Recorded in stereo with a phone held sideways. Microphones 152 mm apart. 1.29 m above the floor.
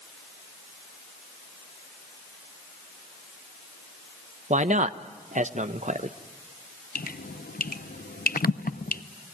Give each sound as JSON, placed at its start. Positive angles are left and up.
{"t": 4.5, "sound": "a man speaking", "side_deg": -55, "distance_m": 0.9}
{"t": 7.0, "sound": "dripping", "side_deg": 85, "distance_m": 0.7}